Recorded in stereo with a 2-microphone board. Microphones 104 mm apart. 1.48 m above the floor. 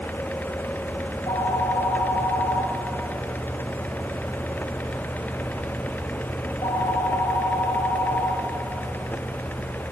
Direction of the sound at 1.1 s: 50° left (ahead or behind).